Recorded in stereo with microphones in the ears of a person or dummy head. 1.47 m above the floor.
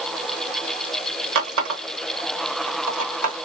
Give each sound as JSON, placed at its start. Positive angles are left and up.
{"t": 1.4, "sound": "a running tap", "side_deg": -55, "distance_m": 0.8}